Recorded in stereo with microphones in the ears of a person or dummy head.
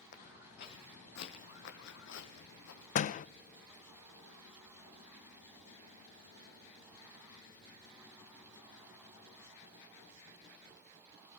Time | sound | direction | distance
0.1 | footsteps | 40° left (ahead or behind) | 3.5 m
3.0 | a door slam | 45° left (ahead or behind) | 0.6 m